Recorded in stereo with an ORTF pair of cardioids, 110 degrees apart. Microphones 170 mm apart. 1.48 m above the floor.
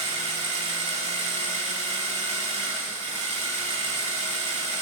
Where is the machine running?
45° right, 2.5 m.